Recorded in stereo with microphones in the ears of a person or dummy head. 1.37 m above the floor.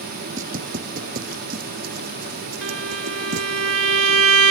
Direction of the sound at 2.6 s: 80° right.